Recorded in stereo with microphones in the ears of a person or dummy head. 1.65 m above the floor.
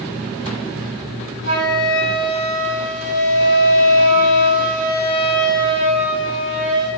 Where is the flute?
35° right (ahead or behind), 3 m.